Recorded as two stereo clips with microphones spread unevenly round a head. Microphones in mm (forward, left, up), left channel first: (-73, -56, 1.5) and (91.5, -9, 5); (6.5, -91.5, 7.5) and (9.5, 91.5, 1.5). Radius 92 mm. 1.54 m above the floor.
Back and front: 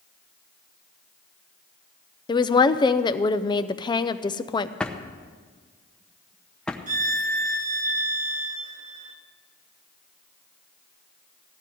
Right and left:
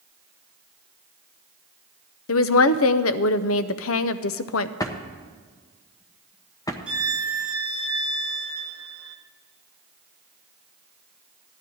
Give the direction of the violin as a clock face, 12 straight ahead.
12 o'clock.